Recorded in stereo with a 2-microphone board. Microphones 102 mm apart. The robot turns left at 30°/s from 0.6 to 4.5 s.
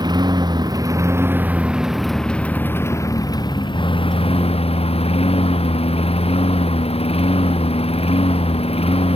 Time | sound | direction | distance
0.0 | a lawn mower | 135° right | ?